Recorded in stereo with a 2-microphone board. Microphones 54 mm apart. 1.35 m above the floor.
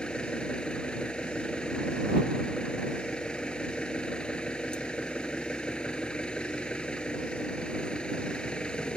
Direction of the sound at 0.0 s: 20° left (ahead or behind).